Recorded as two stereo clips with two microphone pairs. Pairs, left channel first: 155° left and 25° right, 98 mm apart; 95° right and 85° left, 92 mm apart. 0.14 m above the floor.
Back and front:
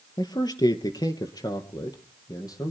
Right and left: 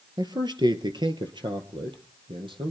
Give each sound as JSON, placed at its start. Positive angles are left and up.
{"t": 0.2, "sound": "a man speaking", "azimuth_deg": 120, "distance_m": 2.5}